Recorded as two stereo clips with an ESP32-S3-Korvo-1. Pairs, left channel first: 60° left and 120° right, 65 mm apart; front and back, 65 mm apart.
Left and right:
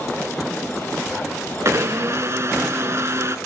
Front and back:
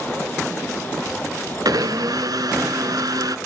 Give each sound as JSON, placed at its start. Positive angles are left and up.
{"t": 1.6, "sound": "a blender", "azimuth_deg": -165, "distance_m": 0.5}